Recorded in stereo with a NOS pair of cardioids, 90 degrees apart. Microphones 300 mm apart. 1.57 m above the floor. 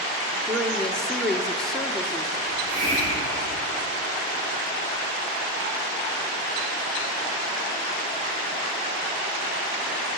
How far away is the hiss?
About 6 m.